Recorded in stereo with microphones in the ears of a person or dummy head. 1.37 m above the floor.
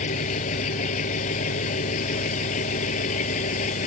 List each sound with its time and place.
0.0 s an engine running: 40° left (ahead or behind)